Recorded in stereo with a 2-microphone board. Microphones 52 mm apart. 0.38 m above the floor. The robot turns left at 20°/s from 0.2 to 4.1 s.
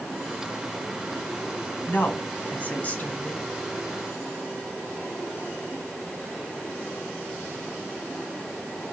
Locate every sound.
1.9 s a woman speaking: 100° left, 1.4 m; by 3.5 s 65° left, 1.4 m